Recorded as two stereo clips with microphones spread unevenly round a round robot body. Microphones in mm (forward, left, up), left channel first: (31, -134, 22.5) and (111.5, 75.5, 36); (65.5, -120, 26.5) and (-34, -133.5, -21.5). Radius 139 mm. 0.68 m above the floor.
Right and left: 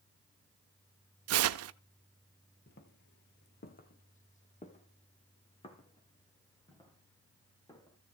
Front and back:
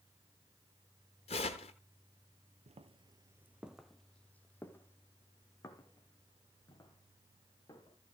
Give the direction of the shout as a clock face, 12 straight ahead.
I don't hear a shout.